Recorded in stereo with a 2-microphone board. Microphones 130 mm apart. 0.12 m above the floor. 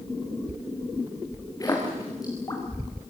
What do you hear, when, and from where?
1.6 s a splash: 25° left (ahead or behind), 5.5 m